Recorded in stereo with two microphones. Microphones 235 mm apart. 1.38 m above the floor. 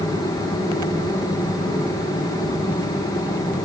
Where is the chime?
No chime in this recording.